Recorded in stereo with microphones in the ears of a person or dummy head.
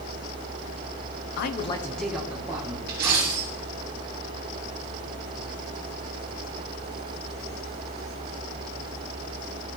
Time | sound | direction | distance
1.4 | a man speaking | 65° left (ahead or behind) | 0.6 m
2.9 | a dropped coin | 40° right (ahead or behind) | 2.5 m